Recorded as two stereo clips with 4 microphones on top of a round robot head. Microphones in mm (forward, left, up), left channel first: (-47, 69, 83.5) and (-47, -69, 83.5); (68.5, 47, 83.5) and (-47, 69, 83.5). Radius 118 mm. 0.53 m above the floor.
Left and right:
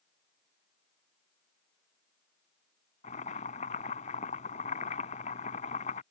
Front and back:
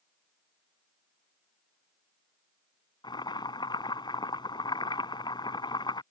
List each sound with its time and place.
3.0 s boiling: 45° left